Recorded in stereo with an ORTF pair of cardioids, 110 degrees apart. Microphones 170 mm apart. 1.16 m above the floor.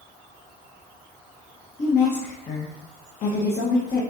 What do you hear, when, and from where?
1.8 s a woman speaking: 45° left, 0.7 m